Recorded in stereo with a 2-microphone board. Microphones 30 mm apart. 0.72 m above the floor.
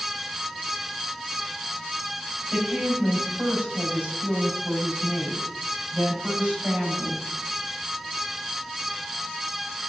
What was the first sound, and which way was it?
A woman speaking, 65° right (ahead or behind).